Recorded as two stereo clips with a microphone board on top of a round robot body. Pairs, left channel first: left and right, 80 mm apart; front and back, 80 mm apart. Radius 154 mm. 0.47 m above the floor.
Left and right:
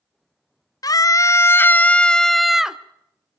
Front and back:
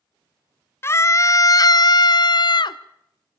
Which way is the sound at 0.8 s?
55° left.